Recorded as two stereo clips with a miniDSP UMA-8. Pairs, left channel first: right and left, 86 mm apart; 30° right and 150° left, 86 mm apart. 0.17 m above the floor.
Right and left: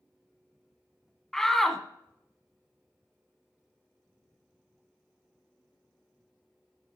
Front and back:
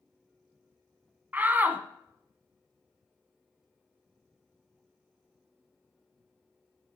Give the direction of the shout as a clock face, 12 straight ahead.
6 o'clock.